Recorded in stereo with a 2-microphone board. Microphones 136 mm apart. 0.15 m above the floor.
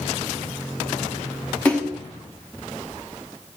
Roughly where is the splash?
Centre.